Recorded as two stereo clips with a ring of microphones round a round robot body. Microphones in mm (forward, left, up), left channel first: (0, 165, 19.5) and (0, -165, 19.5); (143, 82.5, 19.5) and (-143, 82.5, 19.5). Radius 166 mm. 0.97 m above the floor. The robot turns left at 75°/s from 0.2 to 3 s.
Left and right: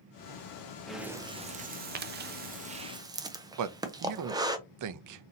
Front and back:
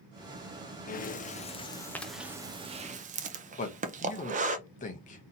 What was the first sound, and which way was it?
Breathing, 5° left.